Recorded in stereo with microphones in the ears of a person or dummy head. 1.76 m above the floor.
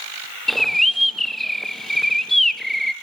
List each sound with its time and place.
0.5 s a bird: centre (ahead or behind), 0.9 m